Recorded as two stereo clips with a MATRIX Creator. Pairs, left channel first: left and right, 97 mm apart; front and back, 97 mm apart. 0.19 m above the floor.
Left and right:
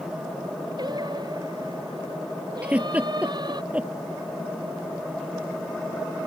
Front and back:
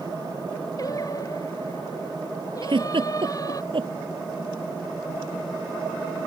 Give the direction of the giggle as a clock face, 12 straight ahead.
5 o'clock.